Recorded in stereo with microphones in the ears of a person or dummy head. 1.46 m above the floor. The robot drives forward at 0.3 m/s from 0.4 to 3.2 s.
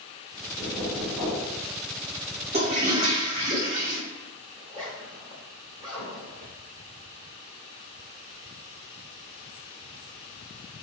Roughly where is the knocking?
Centre.